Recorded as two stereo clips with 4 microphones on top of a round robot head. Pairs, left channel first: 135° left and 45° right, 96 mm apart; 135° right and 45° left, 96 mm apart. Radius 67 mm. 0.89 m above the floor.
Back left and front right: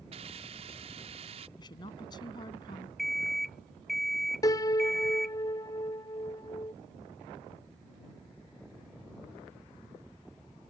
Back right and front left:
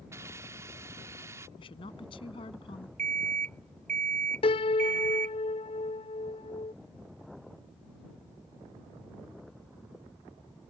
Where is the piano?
170° right.